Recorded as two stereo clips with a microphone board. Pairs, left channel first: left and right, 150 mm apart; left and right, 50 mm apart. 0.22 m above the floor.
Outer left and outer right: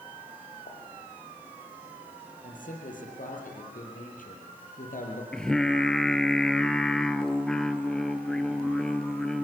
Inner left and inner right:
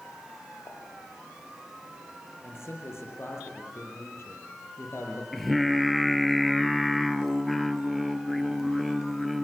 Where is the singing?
5° left (ahead or behind), 1.1 m.